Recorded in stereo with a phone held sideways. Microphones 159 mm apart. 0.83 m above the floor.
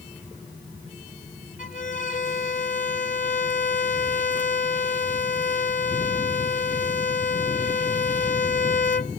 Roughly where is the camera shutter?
I don't hear a camera shutter.